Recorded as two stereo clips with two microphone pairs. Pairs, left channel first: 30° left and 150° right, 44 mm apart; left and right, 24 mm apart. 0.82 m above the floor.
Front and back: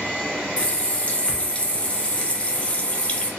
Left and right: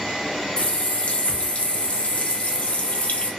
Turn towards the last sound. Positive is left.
turn(degrees=85)